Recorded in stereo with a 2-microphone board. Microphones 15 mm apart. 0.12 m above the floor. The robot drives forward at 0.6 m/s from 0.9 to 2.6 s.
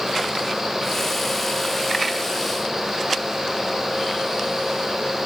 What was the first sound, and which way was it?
Only background noise.